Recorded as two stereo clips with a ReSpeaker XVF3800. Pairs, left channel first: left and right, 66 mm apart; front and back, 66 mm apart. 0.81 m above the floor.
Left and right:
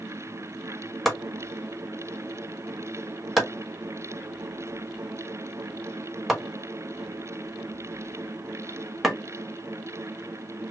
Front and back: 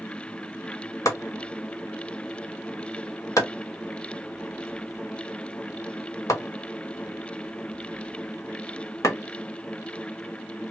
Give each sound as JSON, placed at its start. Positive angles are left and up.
{"t": 1.1, "sound": "chopping", "azimuth_deg": 0, "distance_m": 1.4}